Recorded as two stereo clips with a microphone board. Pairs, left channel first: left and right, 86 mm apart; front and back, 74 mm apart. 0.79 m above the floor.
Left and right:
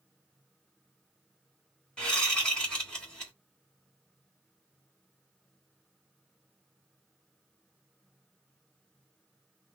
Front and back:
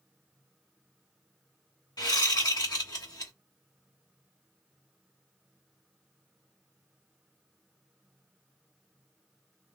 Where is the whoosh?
10° left, 1.6 m.